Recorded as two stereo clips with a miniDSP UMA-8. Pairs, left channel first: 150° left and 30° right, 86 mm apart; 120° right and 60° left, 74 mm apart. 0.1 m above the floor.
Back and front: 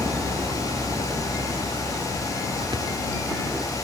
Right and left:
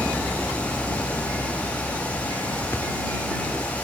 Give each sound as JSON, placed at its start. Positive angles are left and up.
{"t": 0.0, "sound": "a vehicle", "azimuth_deg": -25}
{"t": 2.7, "sound": "a thud", "azimuth_deg": -60}